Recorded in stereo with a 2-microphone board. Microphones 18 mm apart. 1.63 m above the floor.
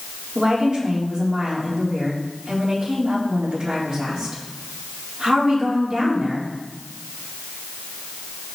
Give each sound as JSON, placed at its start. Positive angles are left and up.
{"t": 0.3, "sound": "a woman speaking", "side_deg": -50, "distance_m": 4.0}